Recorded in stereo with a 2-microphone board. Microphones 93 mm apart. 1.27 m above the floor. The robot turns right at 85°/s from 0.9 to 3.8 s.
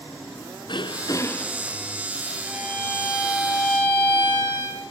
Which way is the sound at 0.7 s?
120° left.